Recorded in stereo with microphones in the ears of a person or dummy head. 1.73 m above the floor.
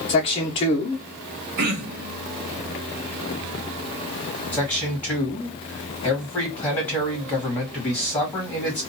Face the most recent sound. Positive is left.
turn(degrees=10)  # may be behind; listen again after turning